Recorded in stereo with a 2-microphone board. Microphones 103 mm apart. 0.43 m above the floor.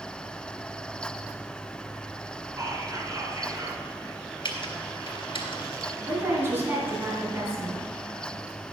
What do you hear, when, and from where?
2.6 s whispering: 35° right (ahead or behind), 4.5 m
4.5 s typing on a keyboard: 55° left (ahead or behind), 2 m
6.1 s a woman speaking: 25° right (ahead or behind), 3.5 m